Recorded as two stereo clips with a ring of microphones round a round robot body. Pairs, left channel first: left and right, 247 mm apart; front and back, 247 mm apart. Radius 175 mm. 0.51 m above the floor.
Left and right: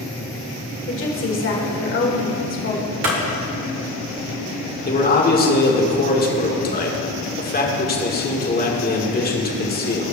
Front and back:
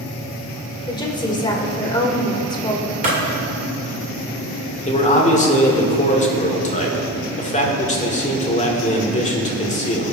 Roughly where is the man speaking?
Ahead left.